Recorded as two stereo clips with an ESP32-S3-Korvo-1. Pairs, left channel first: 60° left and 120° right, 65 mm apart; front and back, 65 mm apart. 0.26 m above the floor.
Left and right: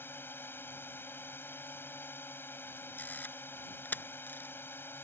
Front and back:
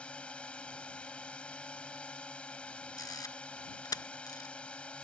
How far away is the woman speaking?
I don't hear a woman speaking.